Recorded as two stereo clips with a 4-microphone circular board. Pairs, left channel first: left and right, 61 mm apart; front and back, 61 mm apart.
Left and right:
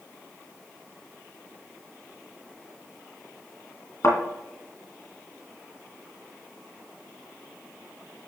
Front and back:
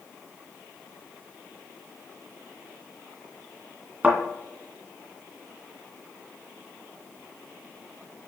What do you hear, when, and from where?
4.0 s a thud: 110° left, 2.0 m